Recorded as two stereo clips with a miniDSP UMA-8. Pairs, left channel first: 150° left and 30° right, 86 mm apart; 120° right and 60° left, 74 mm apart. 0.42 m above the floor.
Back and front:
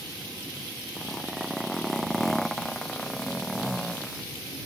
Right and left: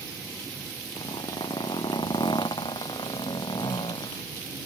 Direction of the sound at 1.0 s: 120° right.